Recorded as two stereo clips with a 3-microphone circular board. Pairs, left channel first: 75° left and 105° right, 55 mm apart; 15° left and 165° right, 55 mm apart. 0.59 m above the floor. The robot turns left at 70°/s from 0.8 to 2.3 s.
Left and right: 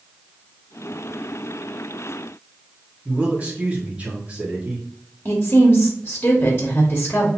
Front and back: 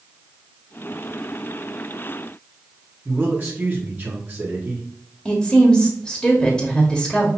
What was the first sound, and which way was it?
A man speaking, 150° right.